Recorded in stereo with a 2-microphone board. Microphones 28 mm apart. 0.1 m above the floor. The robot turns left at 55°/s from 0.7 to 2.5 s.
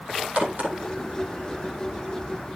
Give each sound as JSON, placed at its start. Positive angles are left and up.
{"t": 0.4, "sound": "a crack", "side_deg": -50, "distance_m": 4.0}